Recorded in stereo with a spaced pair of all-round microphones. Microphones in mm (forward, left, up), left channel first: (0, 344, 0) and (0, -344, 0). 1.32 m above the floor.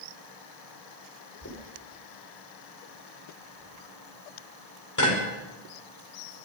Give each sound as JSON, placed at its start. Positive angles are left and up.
{"t": 1.4, "sound": "knocking", "side_deg": 25, "distance_m": 4.5}